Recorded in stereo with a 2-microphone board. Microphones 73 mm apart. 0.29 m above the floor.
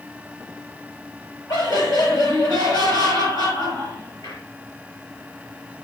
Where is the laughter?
60° left (ahead or behind), 6 m.